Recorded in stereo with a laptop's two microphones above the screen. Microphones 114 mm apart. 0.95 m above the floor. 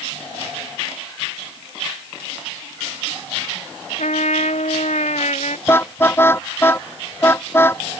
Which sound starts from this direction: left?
A trumpet, at 4.0 s.